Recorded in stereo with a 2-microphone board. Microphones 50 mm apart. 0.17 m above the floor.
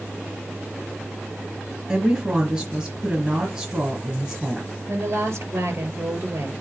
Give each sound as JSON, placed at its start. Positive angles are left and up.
{"t": 1.9, "sound": "a woman speaking", "side_deg": -20, "distance_m": 2.5}
{"t": 4.9, "sound": "a woman speaking", "side_deg": -65, "distance_m": 3.5}